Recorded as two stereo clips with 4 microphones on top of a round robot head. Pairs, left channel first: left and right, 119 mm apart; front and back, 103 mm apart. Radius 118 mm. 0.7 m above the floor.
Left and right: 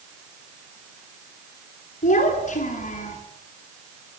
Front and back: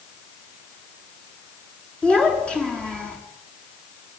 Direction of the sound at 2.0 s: 80° left.